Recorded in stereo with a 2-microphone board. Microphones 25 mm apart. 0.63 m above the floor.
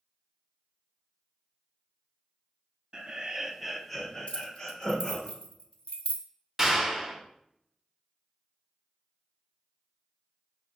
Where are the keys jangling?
45° left (ahead or behind), 0.7 m.